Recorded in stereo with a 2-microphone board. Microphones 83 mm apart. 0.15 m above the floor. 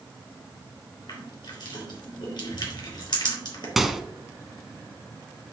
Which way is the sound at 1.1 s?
65° left (ahead or behind).